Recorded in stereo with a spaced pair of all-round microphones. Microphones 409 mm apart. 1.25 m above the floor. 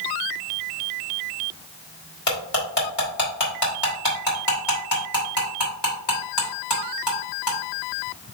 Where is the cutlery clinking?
75° left (ahead or behind), 3 m.